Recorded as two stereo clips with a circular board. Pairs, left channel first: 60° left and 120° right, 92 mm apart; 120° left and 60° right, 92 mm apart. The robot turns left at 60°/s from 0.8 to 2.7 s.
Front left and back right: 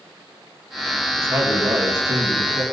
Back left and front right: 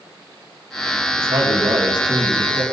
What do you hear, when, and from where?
1.2 s a man speaking: 65° right, 1.9 m; by 2.6 s 150° right, 1.9 m